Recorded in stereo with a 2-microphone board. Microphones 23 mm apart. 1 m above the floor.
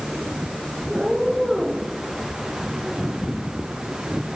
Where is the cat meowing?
20° right (ahead or behind), 5 m; by 1.9 s 30° right (ahead or behind), 4.5 m.